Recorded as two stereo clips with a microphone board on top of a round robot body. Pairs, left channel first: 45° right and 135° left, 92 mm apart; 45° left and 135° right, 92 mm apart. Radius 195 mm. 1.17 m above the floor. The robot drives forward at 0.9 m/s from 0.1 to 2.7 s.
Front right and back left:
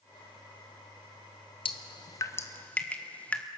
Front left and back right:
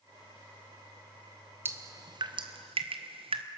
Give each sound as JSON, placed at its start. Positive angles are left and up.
{"t": 1.6, "sound": "dripping", "azimuth_deg": -70, "distance_m": 1.1}